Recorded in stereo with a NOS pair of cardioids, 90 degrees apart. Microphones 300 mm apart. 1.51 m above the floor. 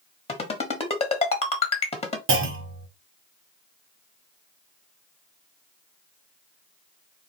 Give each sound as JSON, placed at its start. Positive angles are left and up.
{"t": 0.3, "sound": "a ringtone", "azimuth_deg": 20, "distance_m": 1.3}
{"t": 2.3, "sound": "a clunk", "azimuth_deg": -45, "distance_m": 1.0}